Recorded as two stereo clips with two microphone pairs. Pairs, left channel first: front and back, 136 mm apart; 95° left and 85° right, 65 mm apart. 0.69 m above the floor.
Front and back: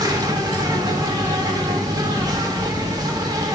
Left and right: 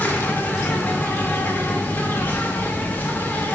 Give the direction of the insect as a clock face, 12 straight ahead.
7 o'clock.